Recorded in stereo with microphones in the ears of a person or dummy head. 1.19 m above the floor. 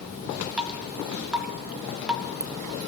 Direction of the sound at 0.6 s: 10° right (ahead or behind).